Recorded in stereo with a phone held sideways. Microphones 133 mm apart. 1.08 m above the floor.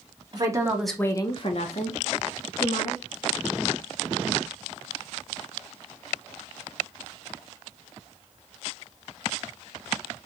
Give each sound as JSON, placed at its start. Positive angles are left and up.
{"t": 0.3, "sound": "a woman speaking", "side_deg": -35, "distance_m": 0.9}